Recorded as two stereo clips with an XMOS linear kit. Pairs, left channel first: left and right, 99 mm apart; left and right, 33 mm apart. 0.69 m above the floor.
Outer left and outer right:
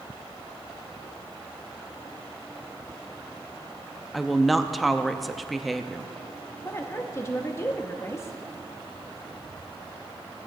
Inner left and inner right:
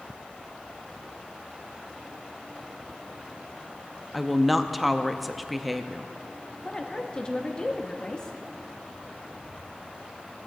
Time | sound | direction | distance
4.1 | a woman speaking | centre (ahead or behind) | 0.5 m
6.7 | a woman speaking | 25° left (ahead or behind) | 0.9 m